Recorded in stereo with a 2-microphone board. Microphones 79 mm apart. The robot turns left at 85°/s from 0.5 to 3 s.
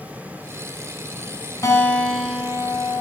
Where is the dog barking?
I don't hear a dog barking.